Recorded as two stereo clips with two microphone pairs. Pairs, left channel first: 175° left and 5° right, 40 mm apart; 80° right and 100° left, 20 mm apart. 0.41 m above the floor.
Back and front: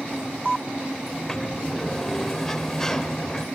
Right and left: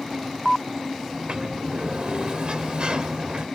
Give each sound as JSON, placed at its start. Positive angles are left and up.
{"t": 1.1, "sound": "a sliding door", "azimuth_deg": 100, "distance_m": 1.0}